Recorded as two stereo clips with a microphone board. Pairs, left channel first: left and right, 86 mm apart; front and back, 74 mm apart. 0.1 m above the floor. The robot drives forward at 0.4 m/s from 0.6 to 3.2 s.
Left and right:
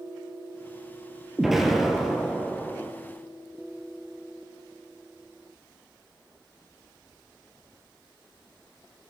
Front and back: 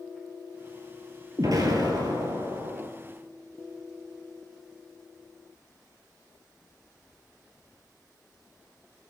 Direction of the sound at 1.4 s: 175° right.